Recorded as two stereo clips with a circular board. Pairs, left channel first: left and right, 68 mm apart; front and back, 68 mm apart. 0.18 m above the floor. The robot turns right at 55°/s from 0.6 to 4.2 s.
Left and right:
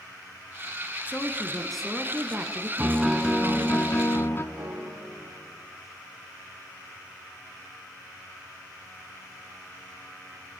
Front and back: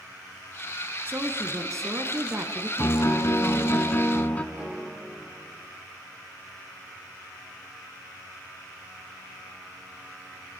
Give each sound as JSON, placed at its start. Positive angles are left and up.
{"t": 1.1, "sound": "a woman speaking", "azimuth_deg": 140, "distance_m": 1.5}
{"t": 2.8, "sound": "a piano", "azimuth_deg": -20, "distance_m": 1.3}
{"t": 4.5, "sound": "a piano", "azimuth_deg": -115, "distance_m": 7.5}